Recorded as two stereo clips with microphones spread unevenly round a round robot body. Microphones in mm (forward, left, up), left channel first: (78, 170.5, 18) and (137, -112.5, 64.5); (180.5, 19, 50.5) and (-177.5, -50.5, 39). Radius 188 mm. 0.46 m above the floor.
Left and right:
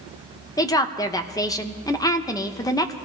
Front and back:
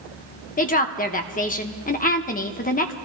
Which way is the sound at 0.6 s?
55° left.